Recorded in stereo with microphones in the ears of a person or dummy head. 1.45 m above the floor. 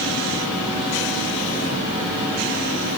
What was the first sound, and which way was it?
Only background noise.